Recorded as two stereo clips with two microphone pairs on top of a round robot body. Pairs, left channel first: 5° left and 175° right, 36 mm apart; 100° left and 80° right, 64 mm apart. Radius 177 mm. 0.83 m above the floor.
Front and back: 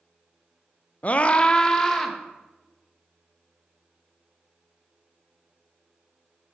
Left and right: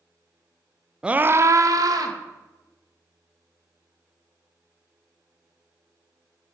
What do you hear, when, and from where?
1.0 s a scream: 10° right, 0.6 m; by 2.2 s 70° right, 1.3 m